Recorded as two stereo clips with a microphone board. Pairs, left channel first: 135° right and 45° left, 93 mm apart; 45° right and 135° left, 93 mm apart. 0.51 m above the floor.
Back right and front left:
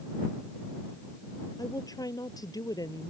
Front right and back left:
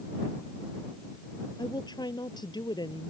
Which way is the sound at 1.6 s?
85° right.